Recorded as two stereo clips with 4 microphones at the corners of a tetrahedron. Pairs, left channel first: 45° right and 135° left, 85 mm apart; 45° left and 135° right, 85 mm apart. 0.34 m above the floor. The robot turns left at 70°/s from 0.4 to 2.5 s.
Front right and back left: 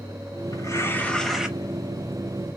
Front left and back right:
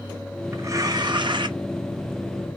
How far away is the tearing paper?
About 0.6 m.